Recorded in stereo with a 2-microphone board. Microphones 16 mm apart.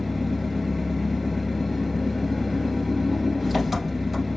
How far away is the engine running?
About 1.8 m.